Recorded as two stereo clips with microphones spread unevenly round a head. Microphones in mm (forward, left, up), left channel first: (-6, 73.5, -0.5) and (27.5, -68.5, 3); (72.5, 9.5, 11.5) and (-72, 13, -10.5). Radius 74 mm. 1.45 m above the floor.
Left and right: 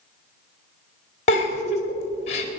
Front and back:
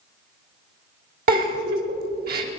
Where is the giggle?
155° left, 2.5 m.